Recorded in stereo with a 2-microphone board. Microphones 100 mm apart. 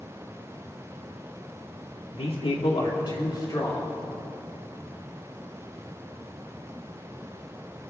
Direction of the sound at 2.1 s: 75° left (ahead or behind).